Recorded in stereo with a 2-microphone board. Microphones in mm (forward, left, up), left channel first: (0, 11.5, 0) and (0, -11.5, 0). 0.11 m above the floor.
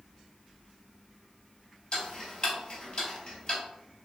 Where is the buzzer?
I don't hear a buzzer.